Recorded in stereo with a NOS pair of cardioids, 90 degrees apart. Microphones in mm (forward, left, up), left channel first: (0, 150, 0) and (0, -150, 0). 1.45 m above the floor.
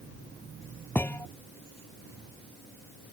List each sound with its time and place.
0.9 s a thud: 5° left